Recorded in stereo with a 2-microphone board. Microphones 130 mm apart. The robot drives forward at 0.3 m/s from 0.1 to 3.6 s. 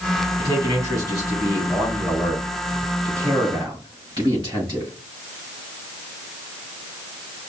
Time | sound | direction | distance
0.4 | a man speaking | 30° right (ahead or behind) | 3 m